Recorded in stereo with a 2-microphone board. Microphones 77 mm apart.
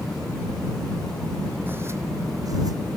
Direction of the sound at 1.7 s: 30° right (ahead or behind).